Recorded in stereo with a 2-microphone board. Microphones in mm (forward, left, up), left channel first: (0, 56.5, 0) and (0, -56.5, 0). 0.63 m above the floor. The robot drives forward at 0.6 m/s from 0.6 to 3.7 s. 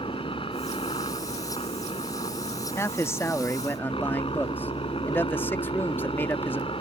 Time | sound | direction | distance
0.0 | a helicopter | 50° left (ahead or behind) | ?
2.8 | a man speaking | 25° left (ahead or behind) | ?